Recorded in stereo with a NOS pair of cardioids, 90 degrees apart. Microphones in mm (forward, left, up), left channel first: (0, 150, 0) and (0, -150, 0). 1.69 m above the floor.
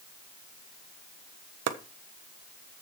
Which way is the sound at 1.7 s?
60° right.